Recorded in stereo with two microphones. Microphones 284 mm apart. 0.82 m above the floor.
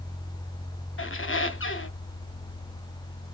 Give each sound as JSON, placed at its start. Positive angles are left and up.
{"t": 1.0, "sound": "a squeak", "side_deg": 45, "distance_m": 0.6}